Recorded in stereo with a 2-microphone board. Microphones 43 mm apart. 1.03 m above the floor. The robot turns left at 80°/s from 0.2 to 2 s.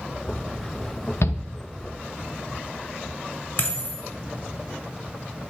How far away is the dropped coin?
About 1.4 m.